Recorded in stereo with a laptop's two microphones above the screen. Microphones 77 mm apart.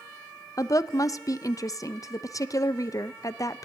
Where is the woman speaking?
45° left (ahead or behind), 0.5 m.